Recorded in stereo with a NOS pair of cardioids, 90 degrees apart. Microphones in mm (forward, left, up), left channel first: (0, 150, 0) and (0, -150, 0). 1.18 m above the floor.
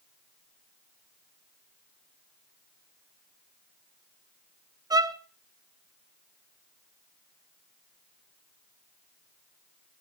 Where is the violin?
15° right, 0.7 m.